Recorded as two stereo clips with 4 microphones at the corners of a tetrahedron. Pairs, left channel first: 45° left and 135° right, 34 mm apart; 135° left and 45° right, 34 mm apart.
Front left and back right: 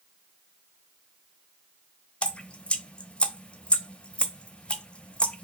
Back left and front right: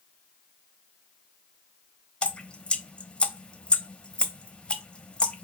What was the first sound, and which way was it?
Dripping, 90° left.